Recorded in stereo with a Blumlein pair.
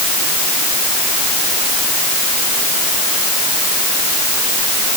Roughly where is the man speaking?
No man speaking in this recording.